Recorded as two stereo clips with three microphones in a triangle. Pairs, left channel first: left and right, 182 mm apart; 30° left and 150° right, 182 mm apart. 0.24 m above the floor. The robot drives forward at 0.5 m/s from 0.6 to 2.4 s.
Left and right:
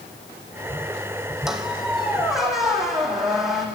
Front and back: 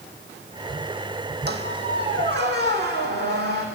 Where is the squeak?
Straight behind, 1.0 m.